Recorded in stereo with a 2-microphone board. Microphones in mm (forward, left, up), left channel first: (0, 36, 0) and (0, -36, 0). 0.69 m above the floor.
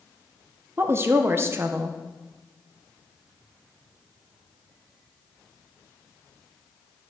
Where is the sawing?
I don't hear sawing.